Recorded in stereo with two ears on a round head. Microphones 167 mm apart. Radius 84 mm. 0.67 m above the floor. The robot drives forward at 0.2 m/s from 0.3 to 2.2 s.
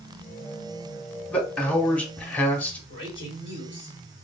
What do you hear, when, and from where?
1.3 s a man speaking: 5° left (ahead or behind), 1.0 m; by 2.8 s 10° left (ahead or behind), 0.8 m
2.9 s a man speaking: 30° left (ahead or behind), 2.5 m